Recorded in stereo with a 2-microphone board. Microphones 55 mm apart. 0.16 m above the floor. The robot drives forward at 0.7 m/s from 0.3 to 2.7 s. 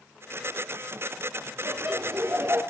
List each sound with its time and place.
1.6 s laughter: 60° right (ahead or behind), 3 m; by 2.6 s 55° right (ahead or behind), 3 m